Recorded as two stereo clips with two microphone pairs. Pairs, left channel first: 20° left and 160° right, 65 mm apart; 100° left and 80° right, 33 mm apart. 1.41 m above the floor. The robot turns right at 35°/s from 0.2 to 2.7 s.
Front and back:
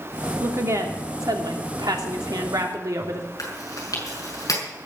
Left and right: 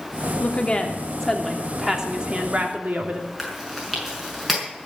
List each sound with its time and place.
0.4 s a woman speaking: 150° left, 3 m; by 3.3 s 130° right, 3 m
3.4 s chewing: straight ahead, 6 m